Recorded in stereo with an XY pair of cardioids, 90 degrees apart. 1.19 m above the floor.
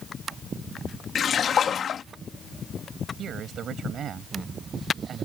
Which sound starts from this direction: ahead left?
A splash, at 1.1 s.